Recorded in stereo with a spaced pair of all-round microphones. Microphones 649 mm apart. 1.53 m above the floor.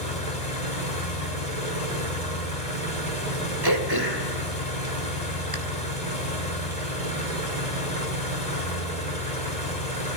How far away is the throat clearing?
About 2.5 m.